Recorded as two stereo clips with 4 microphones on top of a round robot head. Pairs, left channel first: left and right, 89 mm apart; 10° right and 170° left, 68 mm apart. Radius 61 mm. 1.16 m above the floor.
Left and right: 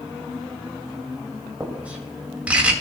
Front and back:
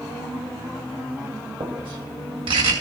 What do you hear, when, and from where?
1.6 s writing: 165° right, 2 m